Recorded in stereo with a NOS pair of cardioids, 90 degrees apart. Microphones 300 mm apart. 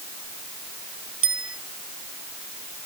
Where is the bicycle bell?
45° right.